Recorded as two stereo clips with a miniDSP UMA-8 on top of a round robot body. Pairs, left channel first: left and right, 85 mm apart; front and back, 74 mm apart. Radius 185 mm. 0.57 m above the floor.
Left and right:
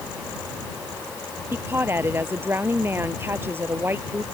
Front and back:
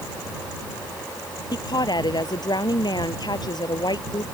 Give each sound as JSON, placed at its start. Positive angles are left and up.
{"t": 1.5, "sound": "a woman speaking", "azimuth_deg": -25}